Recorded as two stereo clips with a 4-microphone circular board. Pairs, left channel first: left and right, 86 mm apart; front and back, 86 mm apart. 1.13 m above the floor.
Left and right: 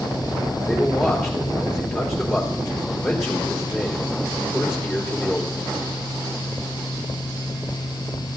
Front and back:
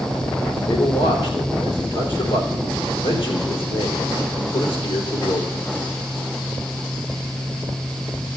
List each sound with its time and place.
0.6 s a man speaking: straight ahead, 3.5 m